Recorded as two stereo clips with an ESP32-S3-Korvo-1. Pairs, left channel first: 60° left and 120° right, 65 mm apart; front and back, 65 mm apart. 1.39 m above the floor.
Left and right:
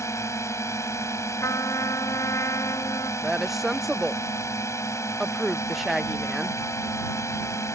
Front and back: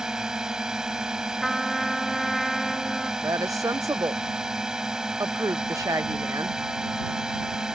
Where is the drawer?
No drawer in this recording.